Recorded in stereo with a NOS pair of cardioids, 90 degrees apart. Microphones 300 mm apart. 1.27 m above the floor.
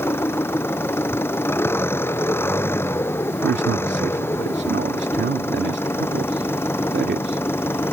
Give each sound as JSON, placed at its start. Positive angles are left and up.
{"t": 0.0, "sound": "an engine running", "azimuth_deg": 10}
{"t": 3.4, "sound": "a man speaking", "azimuth_deg": -35}